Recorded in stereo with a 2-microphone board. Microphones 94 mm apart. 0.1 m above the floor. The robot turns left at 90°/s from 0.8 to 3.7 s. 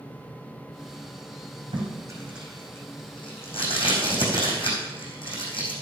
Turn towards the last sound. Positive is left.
turn(degrees=70)  # may be behind; listen again after turning